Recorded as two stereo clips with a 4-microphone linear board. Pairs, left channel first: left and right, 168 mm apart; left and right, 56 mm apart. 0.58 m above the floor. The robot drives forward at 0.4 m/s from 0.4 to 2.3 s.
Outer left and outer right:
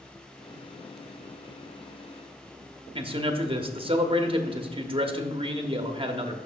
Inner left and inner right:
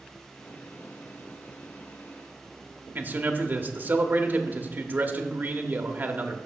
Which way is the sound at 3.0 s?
30° right (ahead or behind).